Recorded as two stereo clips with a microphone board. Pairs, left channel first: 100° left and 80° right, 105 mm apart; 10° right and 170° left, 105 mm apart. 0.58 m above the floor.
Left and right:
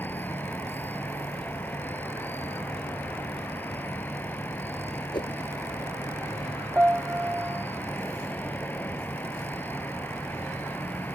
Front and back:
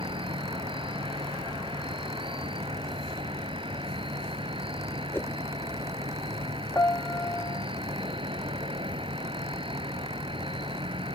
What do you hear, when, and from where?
0.0 s an insect: 170° left
5.1 s a whoosh: 60° left
6.8 s a piano: 35° right